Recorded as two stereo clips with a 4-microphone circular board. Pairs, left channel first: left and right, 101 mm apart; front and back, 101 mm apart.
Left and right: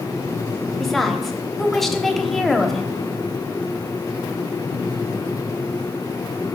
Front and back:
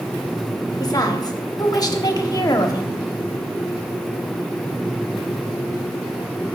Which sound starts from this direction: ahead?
A woman speaking, at 0.8 s.